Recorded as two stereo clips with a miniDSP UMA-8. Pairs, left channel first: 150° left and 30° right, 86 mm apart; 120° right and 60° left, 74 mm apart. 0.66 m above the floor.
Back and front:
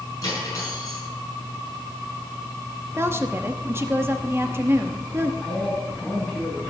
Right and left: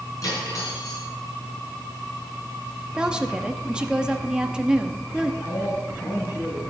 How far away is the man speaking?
About 5 m.